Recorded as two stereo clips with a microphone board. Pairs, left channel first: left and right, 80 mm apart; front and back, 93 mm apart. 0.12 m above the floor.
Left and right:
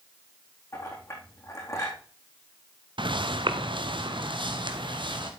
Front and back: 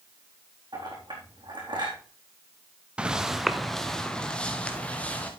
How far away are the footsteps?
About 1.0 m.